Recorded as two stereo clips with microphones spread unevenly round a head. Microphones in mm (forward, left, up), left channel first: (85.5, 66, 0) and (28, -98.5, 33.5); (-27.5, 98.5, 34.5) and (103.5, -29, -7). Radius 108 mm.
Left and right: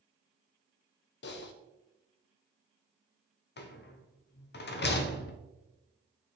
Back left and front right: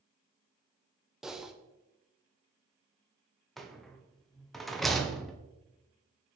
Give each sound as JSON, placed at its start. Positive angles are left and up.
{"t": 1.2, "sound": "typing on a keyboard", "azimuth_deg": 50, "distance_m": 0.6}
{"t": 3.6, "sound": "a rattle", "azimuth_deg": 45, "distance_m": 0.8}